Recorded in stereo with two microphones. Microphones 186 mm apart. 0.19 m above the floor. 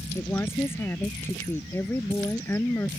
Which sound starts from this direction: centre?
A woman speaking, at 0.1 s.